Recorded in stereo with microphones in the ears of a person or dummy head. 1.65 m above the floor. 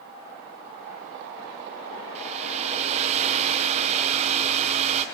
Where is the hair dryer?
40° right (ahead or behind), 1.2 m.